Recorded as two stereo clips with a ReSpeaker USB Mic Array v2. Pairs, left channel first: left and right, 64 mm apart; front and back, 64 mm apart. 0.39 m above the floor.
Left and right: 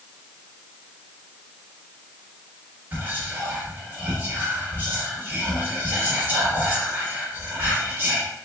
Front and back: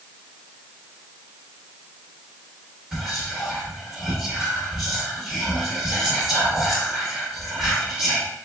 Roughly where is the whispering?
Right.